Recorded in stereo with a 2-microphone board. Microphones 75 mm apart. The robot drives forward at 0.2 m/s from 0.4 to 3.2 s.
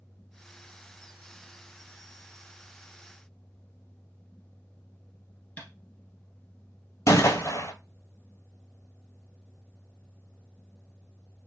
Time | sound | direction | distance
5.6 | tapping | 20° left (ahead or behind) | 2.5 m
7.1 | a gunshot | 45° left (ahead or behind) | 0.7 m